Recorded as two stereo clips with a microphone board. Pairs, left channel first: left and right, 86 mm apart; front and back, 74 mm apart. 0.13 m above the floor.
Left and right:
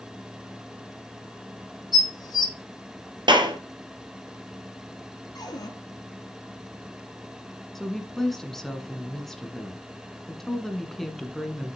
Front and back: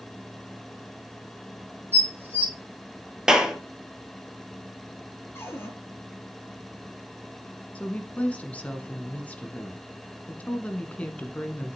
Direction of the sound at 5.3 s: 55° left.